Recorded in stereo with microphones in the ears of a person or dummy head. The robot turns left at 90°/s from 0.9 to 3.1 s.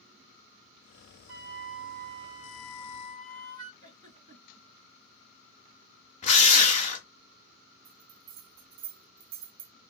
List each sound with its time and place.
1.3 s a flute: 70° right, 1.1 m; by 3.7 s 125° left, 1.1 m
3.8 s a giggle: 25° right (ahead or behind), 2.5 m
6.2 s a drill: 35° left (ahead or behind), 0.7 m
7.8 s a bell: 55° right (ahead or behind), 0.8 m